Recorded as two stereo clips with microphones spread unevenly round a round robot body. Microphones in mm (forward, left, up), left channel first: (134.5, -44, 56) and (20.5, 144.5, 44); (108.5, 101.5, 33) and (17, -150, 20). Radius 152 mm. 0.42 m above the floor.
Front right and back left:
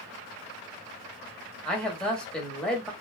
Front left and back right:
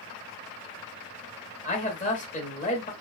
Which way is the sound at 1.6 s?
30° left.